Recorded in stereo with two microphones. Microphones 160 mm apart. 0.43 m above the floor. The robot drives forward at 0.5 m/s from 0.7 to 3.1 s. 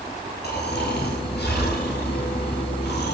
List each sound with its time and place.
0.4 s snoring: 80° left, 7 m